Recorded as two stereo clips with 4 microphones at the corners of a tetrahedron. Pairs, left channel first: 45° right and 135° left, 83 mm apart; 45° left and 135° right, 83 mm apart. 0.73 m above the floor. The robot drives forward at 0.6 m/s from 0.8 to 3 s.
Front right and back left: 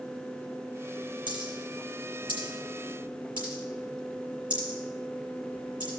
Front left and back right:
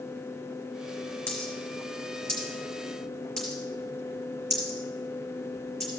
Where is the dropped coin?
125° left, 5 m; by 5.9 s 135° left, 5.5 m.